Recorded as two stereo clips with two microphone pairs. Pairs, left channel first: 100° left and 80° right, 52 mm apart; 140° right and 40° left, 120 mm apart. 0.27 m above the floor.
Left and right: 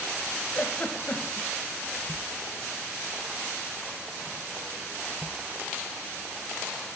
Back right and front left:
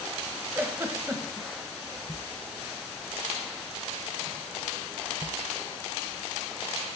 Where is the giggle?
95° left, 0.7 m.